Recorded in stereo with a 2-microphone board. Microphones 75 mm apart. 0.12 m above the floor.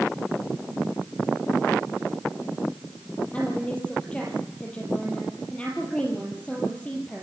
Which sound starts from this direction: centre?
A woman speaking, at 3.3 s.